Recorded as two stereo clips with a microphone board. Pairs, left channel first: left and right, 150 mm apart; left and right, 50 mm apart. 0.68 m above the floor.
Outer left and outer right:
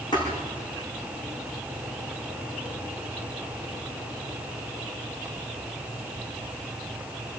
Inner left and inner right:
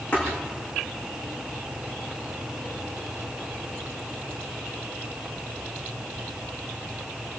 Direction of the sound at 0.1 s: 30° left (ahead or behind).